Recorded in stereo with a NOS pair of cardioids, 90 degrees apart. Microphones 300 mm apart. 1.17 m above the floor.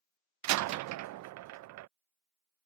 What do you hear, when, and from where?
0.4 s a door slam: 70° right